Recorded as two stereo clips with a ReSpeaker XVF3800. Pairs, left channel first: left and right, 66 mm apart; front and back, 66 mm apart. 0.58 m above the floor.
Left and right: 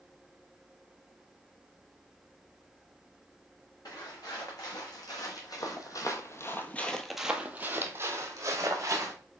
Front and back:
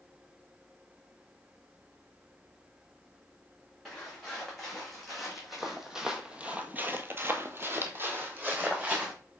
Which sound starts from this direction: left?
Footsteps, at 3.9 s.